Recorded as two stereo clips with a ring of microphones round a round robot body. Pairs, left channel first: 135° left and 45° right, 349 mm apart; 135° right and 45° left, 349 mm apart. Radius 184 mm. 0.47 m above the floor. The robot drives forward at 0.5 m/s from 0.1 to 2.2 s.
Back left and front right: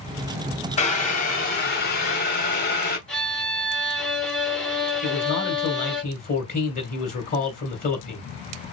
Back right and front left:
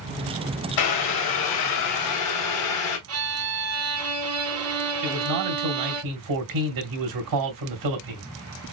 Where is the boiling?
155° right, 1.4 m; by 3.0 s 165° right, 2 m.